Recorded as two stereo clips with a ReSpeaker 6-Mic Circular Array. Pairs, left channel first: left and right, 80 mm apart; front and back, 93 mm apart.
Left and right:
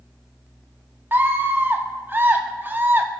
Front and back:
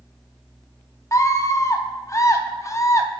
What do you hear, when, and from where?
1.1 s a scream: 35° right, 0.8 m